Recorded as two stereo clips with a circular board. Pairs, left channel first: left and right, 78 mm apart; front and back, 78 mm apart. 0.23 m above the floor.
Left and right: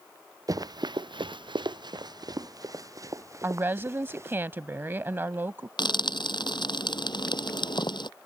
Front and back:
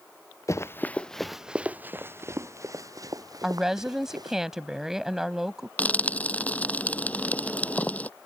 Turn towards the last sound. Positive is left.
turn(degrees=70)